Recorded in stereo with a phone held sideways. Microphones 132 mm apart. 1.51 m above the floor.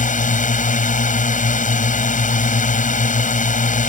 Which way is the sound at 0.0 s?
75° left (ahead or behind).